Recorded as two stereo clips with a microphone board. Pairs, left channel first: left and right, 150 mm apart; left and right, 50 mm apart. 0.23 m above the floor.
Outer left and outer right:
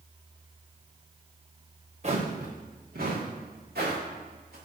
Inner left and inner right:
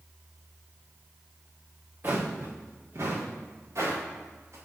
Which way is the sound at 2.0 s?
45° right (ahead or behind).